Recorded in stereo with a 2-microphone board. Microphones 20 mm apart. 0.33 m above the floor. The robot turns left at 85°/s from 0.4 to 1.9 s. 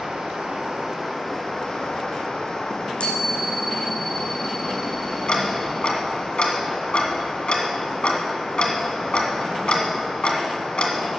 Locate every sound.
0.0 s running water: 105° right, 3 m; by 11.2 s 125° left, 3 m
2.7 s a chime: 70° left (ahead or behind), 2.5 m
5.3 s ticking: 60° left (ahead or behind), 1.5 m